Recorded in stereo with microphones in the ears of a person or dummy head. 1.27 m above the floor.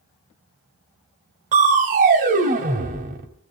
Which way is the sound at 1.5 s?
40° right (ahead or behind).